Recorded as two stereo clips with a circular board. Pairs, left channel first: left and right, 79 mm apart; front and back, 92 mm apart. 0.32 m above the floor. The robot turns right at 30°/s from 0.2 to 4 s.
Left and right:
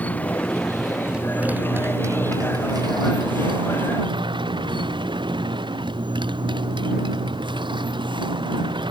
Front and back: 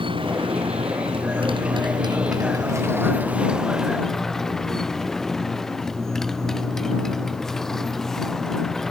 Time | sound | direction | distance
0.0 | a motorcycle | 160° left | ?